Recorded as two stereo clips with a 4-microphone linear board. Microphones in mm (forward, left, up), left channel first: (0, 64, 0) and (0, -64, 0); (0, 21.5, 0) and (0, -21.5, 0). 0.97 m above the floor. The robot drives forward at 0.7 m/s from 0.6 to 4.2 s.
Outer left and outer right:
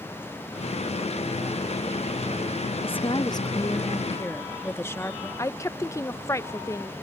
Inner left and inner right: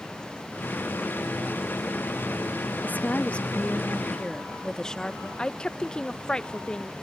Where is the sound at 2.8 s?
50° left (ahead or behind); by 5.3 s 20° left (ahead or behind).